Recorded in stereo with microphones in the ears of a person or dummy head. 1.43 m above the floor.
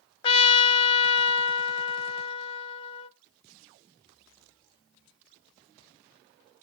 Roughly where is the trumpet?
Left.